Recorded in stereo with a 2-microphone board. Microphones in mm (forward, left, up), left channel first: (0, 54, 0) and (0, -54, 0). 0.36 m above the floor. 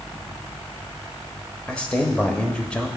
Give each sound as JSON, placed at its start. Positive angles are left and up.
{"t": 1.7, "sound": "a man speaking", "side_deg": 10, "distance_m": 1.1}